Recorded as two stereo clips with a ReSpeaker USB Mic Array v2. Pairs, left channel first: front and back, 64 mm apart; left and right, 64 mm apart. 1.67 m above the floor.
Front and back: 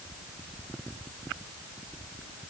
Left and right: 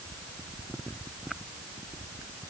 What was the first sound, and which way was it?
Only background noise.